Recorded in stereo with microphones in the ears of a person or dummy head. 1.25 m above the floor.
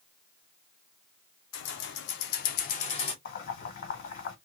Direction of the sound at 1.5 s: 65° left (ahead or behind).